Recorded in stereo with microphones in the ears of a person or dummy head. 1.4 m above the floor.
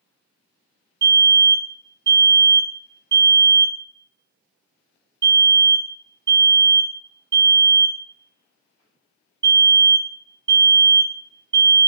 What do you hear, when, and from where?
1.0 s a fire alarm: 10° right (ahead or behind), 1.6 m